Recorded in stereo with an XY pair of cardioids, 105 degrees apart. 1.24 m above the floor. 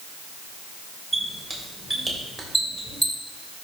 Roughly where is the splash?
No splash in this recording.